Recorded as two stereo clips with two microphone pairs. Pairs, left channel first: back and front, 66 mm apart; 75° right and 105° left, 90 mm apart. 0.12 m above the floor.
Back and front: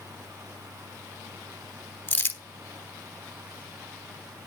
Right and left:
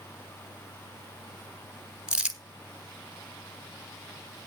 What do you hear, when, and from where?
2.1 s crumpling: 170° left, 1.6 m